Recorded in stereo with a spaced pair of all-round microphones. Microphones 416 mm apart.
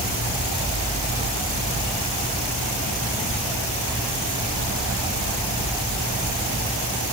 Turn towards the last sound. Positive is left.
No sound to turn to.